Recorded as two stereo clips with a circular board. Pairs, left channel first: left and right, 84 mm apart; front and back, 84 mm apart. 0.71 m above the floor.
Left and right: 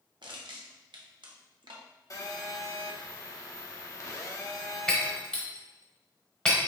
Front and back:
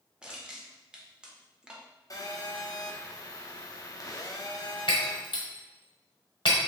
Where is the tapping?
No tapping in this recording.